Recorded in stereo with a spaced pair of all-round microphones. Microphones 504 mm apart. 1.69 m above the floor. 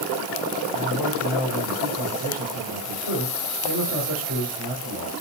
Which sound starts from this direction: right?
A man speaking, at 0.7 s.